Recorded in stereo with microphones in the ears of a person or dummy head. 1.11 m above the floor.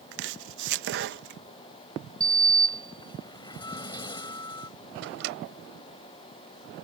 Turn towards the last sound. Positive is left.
turn(degrees=-70)  # may be behind; listen again after turning